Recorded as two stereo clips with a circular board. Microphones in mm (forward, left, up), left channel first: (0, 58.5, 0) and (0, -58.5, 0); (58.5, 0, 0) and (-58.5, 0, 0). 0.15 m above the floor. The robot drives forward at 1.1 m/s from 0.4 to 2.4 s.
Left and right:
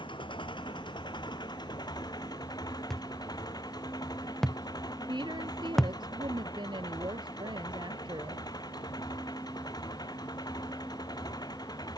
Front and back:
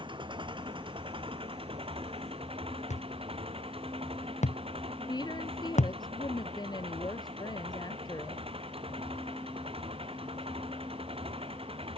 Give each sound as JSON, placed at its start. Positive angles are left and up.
{"t": 0.0, "sound": "an engine running", "azimuth_deg": 135}
{"t": 2.9, "sound": "a thud", "azimuth_deg": 5}
{"t": 5.1, "sound": "a woman speaking", "azimuth_deg": -45}